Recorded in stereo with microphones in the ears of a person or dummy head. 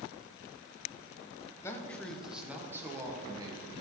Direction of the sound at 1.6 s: 15° left (ahead or behind).